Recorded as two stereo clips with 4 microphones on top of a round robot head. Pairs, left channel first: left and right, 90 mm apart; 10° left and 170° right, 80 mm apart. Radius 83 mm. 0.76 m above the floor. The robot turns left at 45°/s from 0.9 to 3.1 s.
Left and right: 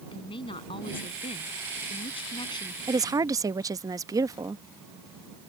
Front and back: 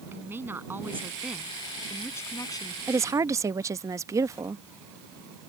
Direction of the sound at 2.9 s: 120° right.